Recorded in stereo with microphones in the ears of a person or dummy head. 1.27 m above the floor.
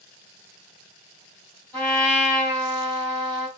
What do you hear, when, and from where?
1.7 s a trumpet: 5° left (ahead or behind), 2.5 m